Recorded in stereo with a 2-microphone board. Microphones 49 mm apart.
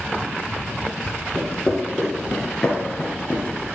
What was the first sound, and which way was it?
Footsteps, 10° right (ahead or behind).